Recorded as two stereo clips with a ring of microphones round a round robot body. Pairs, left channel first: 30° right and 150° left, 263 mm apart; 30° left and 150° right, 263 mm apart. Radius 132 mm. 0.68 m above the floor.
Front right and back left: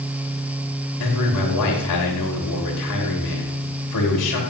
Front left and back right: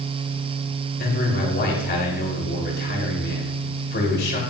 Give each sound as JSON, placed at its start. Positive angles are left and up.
{"t": 1.0, "sound": "a man speaking", "azimuth_deg": -25, "distance_m": 3.0}